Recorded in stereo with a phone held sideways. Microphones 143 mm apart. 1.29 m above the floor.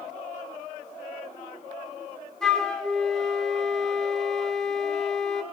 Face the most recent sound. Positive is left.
turn(degrees=5)  # may be behind; listen again after turning